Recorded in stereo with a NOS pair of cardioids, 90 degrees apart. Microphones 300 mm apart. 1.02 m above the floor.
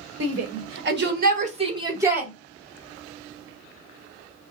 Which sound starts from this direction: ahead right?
A shout, at 0.2 s.